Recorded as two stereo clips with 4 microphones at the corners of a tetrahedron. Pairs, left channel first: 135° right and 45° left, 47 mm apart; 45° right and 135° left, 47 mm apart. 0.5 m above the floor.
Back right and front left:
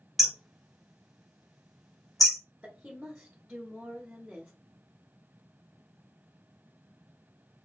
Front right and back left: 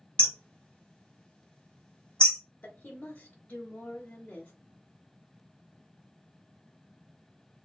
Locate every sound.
0.2 s hammering: 30° right, 0.9 m
2.6 s a woman speaking: 15° right, 1.0 m